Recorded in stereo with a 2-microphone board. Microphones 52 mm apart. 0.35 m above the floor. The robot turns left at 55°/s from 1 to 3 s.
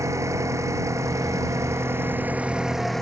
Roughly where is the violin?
No violin in this recording.